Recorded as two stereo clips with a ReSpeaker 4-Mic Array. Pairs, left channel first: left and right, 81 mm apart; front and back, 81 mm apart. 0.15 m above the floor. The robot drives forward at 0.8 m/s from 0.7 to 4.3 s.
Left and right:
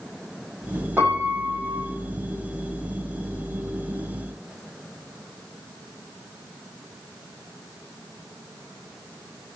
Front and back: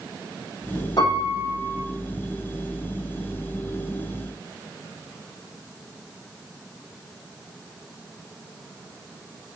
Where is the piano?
25° right, 6 m; by 1.8 s 30° right, 5.5 m.